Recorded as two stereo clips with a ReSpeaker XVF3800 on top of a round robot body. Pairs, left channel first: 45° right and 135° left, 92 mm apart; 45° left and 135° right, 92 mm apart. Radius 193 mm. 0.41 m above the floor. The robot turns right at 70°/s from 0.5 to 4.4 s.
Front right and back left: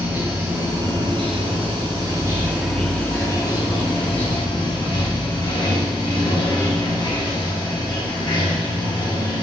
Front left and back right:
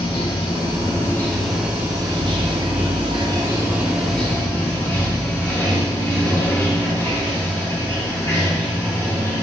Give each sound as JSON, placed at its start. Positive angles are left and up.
{"t": 0.0, "sound": "running water", "azimuth_deg": 65, "distance_m": 1.6}